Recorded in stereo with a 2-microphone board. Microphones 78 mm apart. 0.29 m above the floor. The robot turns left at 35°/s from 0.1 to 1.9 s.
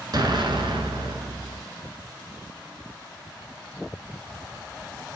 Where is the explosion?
60° right, 1.3 m; by 1.6 s 110° right, 1.3 m.